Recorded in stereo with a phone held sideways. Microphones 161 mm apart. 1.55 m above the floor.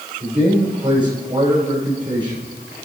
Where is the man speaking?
30° right (ahead or behind), 6 m.